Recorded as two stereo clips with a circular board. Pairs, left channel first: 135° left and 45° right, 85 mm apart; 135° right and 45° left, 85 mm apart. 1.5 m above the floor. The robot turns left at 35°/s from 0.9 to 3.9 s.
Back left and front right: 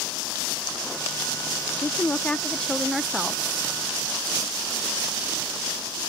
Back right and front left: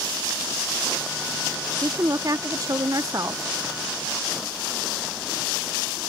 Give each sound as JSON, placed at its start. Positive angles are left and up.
{"t": 1.8, "sound": "a woman speaking", "azimuth_deg": 85}